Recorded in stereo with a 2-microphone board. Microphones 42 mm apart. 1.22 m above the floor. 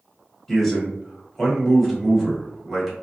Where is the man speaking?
Centre (ahead or behind), 1.2 m.